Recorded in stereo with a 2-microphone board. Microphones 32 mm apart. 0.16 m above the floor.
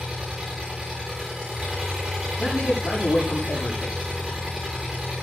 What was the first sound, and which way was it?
An engine running, 15° right (ahead or behind).